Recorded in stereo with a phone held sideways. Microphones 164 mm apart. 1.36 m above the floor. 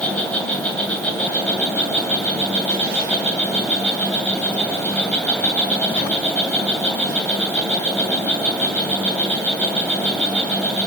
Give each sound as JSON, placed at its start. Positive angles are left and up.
{"t": 0.0, "sound": "an insect", "side_deg": 10, "distance_m": 2.5}